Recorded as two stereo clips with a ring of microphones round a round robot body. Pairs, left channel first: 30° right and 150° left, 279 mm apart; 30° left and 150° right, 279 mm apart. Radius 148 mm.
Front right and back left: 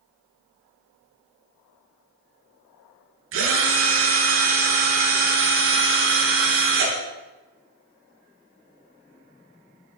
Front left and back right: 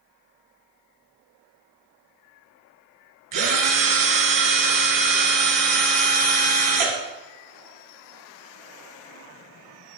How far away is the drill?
About 4 m.